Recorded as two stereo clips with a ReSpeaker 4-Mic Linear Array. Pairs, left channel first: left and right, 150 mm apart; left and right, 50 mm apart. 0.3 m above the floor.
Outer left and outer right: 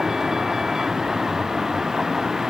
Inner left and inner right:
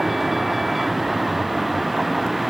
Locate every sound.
0.0 s a vehicle: 5° right (ahead or behind)